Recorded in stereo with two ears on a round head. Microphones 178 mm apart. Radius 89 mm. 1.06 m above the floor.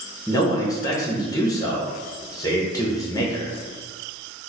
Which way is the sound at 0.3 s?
20° left (ahead or behind).